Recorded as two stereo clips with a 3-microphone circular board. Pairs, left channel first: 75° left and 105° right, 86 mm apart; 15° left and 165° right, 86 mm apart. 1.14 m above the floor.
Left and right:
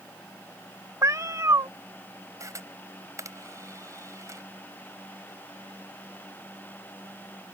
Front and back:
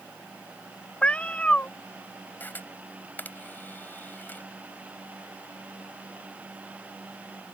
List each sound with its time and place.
1.0 s a cat meowing: 60° right
2.4 s a camera shutter: 55° right